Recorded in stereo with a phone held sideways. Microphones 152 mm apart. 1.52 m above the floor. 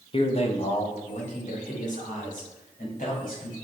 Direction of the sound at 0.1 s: 35° left (ahead or behind).